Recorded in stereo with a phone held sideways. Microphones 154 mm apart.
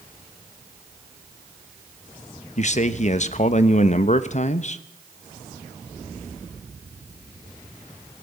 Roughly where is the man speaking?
Left.